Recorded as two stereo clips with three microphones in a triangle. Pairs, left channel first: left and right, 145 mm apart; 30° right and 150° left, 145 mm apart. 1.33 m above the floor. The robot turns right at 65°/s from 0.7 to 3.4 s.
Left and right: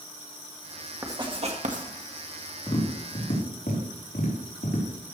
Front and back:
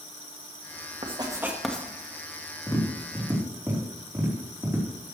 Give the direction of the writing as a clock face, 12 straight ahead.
5 o'clock.